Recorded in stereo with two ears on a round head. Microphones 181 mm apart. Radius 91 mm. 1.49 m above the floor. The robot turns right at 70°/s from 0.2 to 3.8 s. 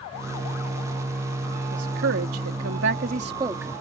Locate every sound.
1.7 s a woman speaking: 140° right; by 3.8 s 5° left